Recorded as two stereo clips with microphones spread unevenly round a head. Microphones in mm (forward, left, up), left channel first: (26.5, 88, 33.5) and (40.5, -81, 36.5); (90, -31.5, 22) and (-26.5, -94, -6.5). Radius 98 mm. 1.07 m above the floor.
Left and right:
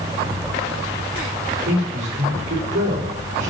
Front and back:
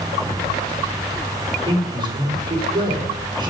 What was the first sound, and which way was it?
A man speaking, 95° right.